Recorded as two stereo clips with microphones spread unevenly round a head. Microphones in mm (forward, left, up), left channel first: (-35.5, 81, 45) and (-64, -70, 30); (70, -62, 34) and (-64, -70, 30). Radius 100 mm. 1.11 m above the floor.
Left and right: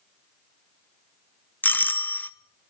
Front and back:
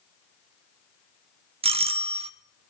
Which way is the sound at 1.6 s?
160° left.